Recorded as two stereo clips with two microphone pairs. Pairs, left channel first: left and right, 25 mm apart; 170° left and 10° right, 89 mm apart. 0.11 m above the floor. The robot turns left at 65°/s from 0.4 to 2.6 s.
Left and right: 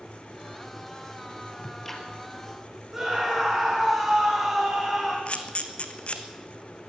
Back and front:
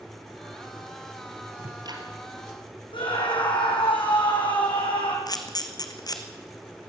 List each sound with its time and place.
1.6 s ticking: 25° left, 3 m; by 2.0 s straight ahead, 3 m
2.9 s a scream: 175° right, 6 m
5.3 s a camera shutter: 130° left, 1.4 m